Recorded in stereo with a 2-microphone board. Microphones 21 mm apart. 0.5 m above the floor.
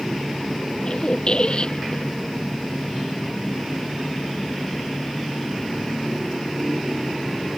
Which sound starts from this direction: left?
A squeak, at 0.8 s.